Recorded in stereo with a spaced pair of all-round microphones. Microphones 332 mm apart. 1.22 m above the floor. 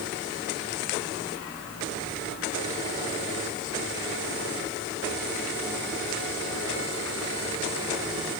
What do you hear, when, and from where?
Only background noise.